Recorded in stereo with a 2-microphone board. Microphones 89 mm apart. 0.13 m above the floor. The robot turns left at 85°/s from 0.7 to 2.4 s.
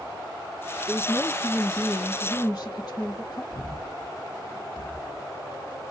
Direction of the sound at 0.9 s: Straight behind.